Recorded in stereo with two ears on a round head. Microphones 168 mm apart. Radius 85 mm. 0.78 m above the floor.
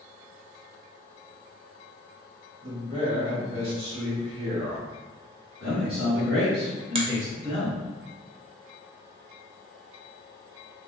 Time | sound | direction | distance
2.6 | a man speaking | 30° right (ahead or behind) | 1.3 m
5.6 | a man speaking | 55° right (ahead or behind) | 1.9 m
7.0 | a finger snap | 30° right (ahead or behind) | 0.6 m